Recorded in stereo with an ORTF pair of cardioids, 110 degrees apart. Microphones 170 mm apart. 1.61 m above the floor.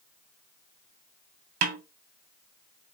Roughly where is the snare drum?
Ahead right.